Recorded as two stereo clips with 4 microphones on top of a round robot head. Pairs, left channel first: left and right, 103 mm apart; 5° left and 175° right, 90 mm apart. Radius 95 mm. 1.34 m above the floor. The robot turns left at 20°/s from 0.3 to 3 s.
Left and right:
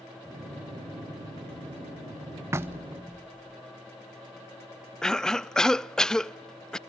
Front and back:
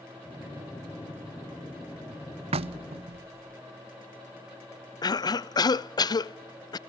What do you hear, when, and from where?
2.5 s knocking: 160° right, 0.6 m; by 3.6 s 170° right, 0.6 m
5.0 s a cough: 10° left, 0.6 m